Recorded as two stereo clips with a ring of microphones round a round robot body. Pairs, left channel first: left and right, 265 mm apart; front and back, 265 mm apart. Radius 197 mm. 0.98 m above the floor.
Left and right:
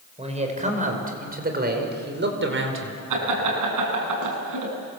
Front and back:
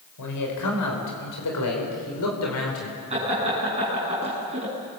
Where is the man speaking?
25° right, 5.5 m; by 3.0 s 50° right, 4.5 m.